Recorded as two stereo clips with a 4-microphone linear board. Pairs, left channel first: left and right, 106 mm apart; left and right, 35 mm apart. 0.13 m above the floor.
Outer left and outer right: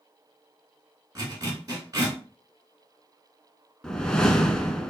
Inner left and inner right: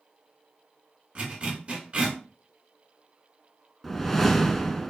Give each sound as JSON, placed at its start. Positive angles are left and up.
{"t": 1.1, "sound": "a zipper", "side_deg": -35, "distance_m": 2.0}
{"t": 3.8, "sound": "a whoosh", "side_deg": 5, "distance_m": 0.6}